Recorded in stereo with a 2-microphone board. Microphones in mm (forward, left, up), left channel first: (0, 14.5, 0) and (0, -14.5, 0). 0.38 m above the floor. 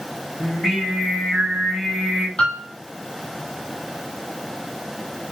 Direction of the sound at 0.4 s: 5° right (ahead or behind).